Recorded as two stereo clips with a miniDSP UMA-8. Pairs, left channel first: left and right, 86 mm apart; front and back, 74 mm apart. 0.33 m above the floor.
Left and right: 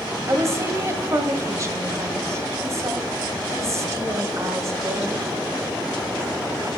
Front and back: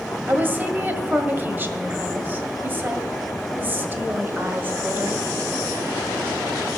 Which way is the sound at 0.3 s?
125° right.